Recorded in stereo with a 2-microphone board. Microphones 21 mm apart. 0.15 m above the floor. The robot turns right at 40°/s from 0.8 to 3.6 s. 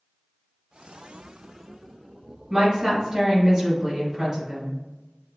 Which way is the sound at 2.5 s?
20° right (ahead or behind).